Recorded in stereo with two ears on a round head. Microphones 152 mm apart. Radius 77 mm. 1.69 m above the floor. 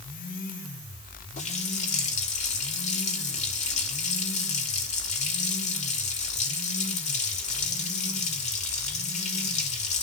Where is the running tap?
45° left (ahead or behind), 3 m.